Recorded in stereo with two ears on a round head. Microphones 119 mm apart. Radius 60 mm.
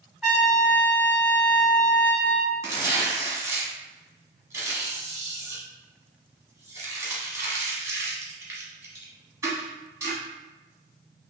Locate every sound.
0.2 s a trumpet: 10° right (ahead or behind), 1.2 m
2.6 s tearing paper: 20° right (ahead or behind), 1.1 m